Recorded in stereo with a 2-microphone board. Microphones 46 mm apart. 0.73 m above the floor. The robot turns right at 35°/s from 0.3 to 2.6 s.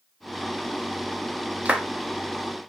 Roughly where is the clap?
Right.